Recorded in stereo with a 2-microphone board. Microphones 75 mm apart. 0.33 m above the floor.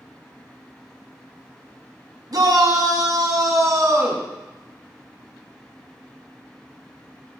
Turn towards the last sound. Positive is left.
turn(degrees=-40)  # may be behind; listen again after turning